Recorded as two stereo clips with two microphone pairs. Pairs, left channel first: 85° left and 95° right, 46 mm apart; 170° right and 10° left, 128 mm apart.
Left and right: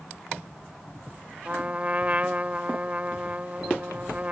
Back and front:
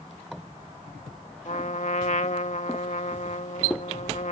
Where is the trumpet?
150° right.